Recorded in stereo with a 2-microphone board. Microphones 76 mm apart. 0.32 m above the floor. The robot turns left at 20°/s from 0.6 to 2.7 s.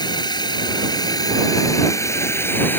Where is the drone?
70° left; by 2.8 s 25° left.